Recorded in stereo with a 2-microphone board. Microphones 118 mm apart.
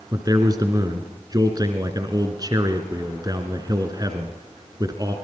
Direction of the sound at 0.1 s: 35° right (ahead or behind).